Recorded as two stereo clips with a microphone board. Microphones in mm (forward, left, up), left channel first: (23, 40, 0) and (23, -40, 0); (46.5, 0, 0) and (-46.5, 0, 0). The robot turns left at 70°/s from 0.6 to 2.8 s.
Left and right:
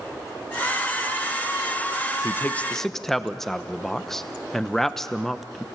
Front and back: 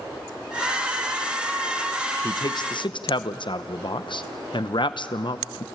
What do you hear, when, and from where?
2.2 s a man speaking: 45° left, 0.7 m; by 5.6 s 5° left, 0.7 m